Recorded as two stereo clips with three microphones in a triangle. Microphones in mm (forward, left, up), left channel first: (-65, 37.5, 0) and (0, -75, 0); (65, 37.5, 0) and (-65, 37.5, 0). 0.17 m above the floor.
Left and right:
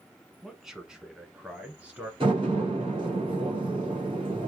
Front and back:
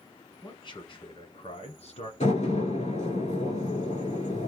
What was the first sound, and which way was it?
A man speaking, 30° left.